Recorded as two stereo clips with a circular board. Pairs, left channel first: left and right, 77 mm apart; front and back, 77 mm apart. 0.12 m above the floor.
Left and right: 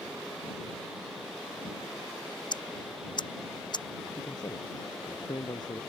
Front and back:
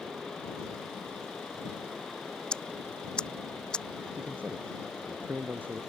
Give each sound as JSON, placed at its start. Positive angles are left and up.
{"t": 2.5, "sound": "ticking", "azimuth_deg": 80}
{"t": 4.1, "sound": "a man speaking", "azimuth_deg": 115}